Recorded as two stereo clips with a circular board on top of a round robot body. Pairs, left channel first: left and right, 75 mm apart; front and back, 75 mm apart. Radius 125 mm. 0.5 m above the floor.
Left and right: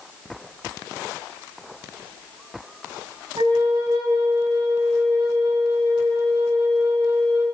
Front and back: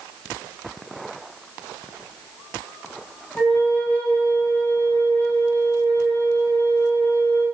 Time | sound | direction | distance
3.4 | a flute | 70° right | 4 m